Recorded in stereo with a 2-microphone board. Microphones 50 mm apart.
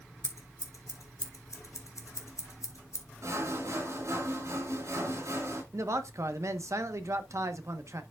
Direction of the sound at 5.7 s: 65° right (ahead or behind).